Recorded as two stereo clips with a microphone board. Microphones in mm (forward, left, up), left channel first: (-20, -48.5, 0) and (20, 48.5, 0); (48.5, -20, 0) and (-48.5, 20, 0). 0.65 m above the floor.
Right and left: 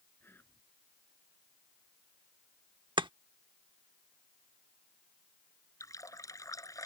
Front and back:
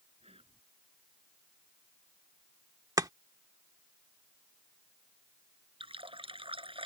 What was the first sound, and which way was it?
Whispering, straight behind.